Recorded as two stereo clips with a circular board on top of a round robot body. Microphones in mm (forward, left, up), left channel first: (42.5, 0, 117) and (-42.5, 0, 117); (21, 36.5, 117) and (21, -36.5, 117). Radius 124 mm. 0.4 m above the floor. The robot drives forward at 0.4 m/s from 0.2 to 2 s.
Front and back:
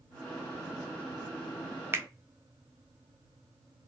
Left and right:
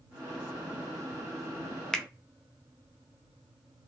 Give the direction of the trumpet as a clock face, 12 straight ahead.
I don't hear a trumpet.